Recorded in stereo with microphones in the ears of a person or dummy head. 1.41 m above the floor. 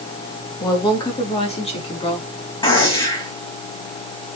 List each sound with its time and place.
0.6 s a woman speaking: 25° left (ahead or behind), 2.5 m; by 2.3 s 30° left (ahead or behind), 4.5 m
2.6 s a gunshot: 25° left (ahead or behind), 4.5 m